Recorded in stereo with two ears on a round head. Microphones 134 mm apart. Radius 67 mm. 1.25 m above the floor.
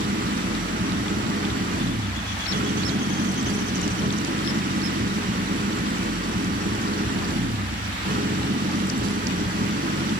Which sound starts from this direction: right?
An engine running, at 0.0 s.